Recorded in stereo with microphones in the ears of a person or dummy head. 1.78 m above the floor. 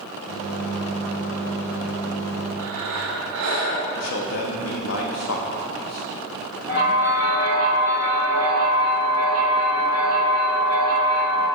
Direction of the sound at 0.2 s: 55° left (ahead or behind).